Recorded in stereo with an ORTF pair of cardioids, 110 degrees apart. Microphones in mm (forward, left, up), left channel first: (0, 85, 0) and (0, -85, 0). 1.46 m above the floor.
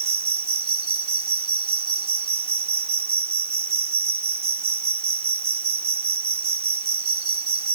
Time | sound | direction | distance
0.0 | an insect | 35° right | ?